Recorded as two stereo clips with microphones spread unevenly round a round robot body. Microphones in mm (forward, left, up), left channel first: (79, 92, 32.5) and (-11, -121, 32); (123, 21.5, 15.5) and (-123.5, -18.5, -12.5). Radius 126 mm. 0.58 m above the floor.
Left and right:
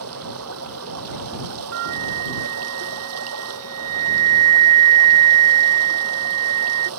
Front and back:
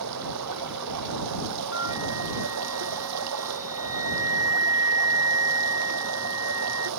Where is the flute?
90° right.